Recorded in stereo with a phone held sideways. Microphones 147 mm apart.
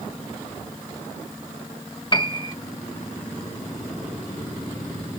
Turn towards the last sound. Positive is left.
turn(degrees=35)  # may be behind; listen again after turning